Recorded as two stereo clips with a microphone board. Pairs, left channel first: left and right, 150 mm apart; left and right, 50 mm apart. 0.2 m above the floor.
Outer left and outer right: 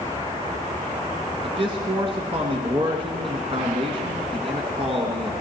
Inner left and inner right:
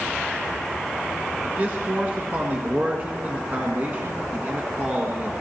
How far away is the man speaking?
About 1.7 m.